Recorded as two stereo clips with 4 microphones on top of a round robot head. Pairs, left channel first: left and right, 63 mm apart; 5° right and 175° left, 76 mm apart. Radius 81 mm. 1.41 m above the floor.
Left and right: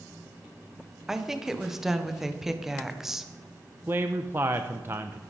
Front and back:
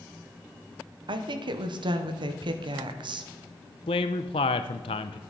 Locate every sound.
1.1 s a woman speaking: 175° right, 1.2 m
3.9 s a man speaking: 25° right, 0.6 m